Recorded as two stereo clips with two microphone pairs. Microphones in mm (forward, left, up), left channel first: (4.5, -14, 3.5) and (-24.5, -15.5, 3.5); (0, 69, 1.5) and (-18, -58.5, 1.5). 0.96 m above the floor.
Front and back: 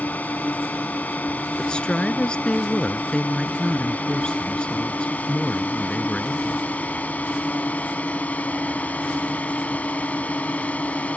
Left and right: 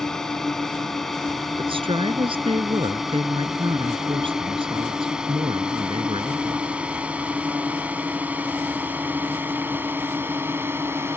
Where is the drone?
5° right; by 11.2 s 25° right.